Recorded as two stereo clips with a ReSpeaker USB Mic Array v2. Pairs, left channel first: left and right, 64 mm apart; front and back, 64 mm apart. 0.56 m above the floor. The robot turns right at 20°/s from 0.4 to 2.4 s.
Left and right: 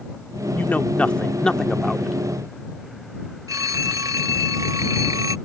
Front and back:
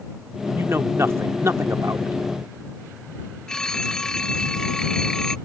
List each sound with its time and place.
0.6 s a man speaking: 145° left; by 2.2 s 175° left
3.5 s a phone ringing: 80° right